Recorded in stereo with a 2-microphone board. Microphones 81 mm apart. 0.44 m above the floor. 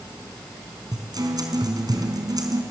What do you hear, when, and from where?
0.9 s a guitar: 55° right (ahead or behind), 4 m